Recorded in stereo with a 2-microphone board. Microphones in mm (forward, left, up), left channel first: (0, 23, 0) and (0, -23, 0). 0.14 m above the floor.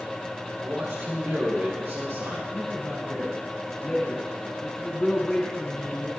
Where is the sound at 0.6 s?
65° right (ahead or behind), 2.5 m.